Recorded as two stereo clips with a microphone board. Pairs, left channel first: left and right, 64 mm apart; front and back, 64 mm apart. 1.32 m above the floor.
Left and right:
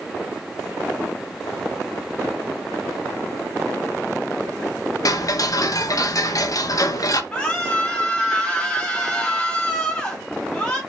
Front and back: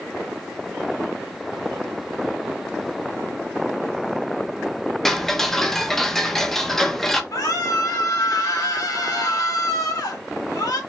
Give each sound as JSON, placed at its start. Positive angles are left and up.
{"t": 5.0, "sound": "ticking", "azimuth_deg": 85, "distance_m": 0.7}
{"t": 7.3, "sound": "a scream", "azimuth_deg": 15, "distance_m": 1.9}